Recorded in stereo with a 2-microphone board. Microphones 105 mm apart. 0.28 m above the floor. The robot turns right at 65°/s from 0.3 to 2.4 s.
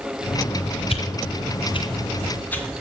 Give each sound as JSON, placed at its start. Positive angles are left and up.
{"t": 0.9, "sound": "a whoosh", "side_deg": 55, "distance_m": 2.0}